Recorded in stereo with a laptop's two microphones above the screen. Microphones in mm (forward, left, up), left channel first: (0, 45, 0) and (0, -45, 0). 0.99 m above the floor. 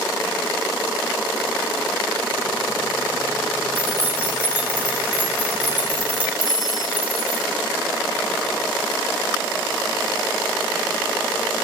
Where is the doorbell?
40° left (ahead or behind), 1.2 m.